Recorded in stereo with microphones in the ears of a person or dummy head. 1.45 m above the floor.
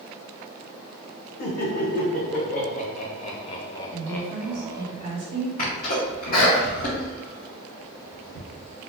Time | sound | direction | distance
1.4 | laughter | 55° left (ahead or behind) | 1.8 m
3.9 | a woman speaking | 35° right (ahead or behind) | 2 m
5.6 | a sneeze | 40° left (ahead or behind) | 1.2 m